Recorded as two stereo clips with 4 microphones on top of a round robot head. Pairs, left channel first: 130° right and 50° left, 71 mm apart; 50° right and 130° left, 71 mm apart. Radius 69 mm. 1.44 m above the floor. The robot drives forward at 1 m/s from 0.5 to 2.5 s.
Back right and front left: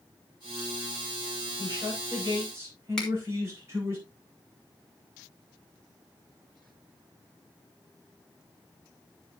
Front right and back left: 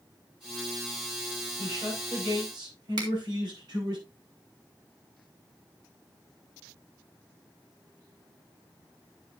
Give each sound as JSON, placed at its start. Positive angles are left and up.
{"t": 1.6, "sound": "a man speaking", "azimuth_deg": 100, "distance_m": 6.5}
{"t": 3.0, "sound": "a finger snap", "azimuth_deg": 150, "distance_m": 3.5}